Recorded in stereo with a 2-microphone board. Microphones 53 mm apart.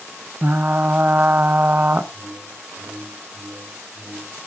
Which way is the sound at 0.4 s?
40° right (ahead or behind).